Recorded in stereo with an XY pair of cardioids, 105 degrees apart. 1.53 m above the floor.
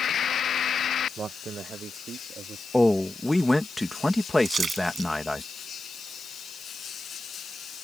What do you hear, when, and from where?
1.2 s a man speaking: 45° right; by 2.6 s 55° right
2.7 s a man speaking: 10° left
4.5 s a splash: 40° right